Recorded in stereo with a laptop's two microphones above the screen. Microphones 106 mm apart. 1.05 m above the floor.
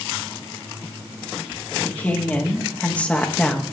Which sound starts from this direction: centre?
A woman speaking, at 1.9 s.